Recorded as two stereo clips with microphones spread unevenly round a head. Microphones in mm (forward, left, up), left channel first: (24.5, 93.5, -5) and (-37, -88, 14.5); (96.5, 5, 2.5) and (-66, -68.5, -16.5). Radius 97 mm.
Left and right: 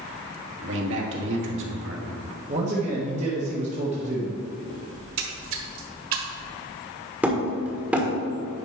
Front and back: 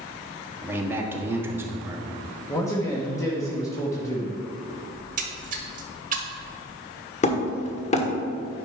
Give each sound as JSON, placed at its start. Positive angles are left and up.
{"t": 0.6, "sound": "a man speaking", "azimuth_deg": -80, "distance_m": 1.6}
{"t": 2.5, "sound": "a man speaking", "azimuth_deg": -50, "distance_m": 1.2}
{"t": 5.0, "sound": "a splash", "azimuth_deg": -120, "distance_m": 1.4}
{"t": 7.2, "sound": "hammering", "azimuth_deg": -25, "distance_m": 1.4}